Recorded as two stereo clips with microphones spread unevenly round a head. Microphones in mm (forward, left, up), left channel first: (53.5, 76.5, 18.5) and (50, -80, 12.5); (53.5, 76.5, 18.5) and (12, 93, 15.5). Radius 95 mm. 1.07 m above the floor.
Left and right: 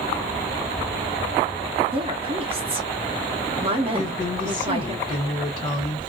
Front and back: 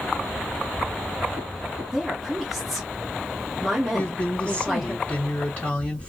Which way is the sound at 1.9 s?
120° right.